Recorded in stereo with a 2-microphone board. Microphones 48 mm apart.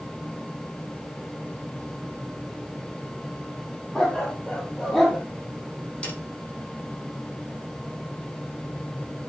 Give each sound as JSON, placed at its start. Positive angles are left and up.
{"t": 4.0, "sound": "a dog barking", "side_deg": 10, "distance_m": 3.5}
{"t": 6.0, "sound": "a snare drum", "side_deg": 20, "distance_m": 6.0}